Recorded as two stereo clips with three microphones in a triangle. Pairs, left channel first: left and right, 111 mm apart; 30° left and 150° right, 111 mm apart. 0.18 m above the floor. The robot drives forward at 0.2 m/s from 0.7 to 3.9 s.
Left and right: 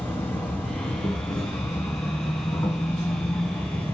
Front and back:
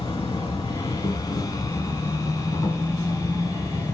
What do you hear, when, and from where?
0.0 s an insect: 35° left, 1.9 m; by 4.0 s 70° left, 1.7 m